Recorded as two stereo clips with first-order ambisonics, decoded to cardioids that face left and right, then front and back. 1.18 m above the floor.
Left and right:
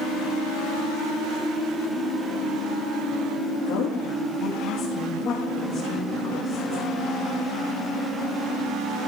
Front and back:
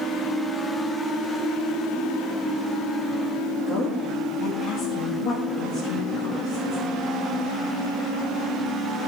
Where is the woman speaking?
65° left, 2 m; by 6.8 s 15° left, 2 m.